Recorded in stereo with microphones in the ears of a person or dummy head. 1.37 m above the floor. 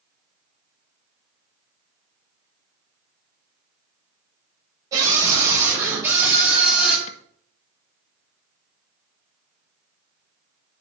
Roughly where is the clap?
Left.